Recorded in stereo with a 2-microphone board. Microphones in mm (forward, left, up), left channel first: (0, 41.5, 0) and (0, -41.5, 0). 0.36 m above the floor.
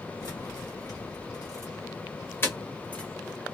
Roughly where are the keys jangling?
Left.